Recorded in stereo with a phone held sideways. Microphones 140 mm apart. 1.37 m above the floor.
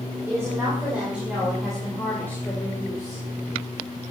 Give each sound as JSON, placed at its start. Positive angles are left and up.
{"t": 0.3, "sound": "a woman speaking", "side_deg": -20, "distance_m": 5.0}